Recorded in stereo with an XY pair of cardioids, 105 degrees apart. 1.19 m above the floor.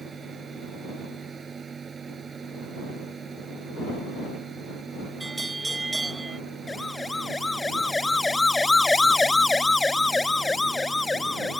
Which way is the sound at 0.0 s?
35° right.